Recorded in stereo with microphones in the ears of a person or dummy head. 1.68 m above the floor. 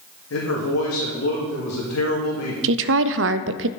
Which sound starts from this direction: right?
A woman speaking, at 2.6 s.